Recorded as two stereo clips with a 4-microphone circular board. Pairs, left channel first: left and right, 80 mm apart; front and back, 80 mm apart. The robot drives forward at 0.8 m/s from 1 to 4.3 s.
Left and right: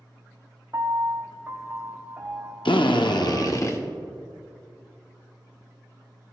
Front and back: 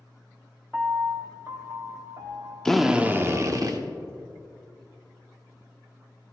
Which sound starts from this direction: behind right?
A piano, at 0.7 s.